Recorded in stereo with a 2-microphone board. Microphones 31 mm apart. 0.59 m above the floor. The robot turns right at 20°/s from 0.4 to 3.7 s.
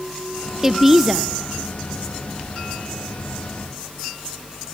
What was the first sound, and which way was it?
A woman speaking, 15° right (ahead or behind).